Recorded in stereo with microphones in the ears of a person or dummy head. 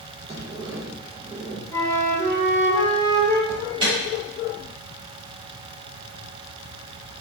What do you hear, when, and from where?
0.3 s a sliding door: 15° right (ahead or behind), 0.9 m
1.7 s a flute: 15° left (ahead or behind), 1.2 m
3.5 s an alarm: 25° right (ahead or behind), 1.3 m